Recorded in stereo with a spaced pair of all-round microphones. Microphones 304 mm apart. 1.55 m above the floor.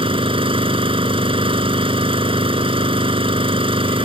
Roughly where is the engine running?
Centre.